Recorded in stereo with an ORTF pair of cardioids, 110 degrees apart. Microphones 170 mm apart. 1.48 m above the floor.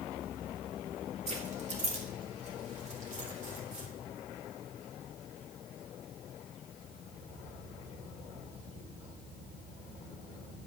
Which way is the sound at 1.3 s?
40° right.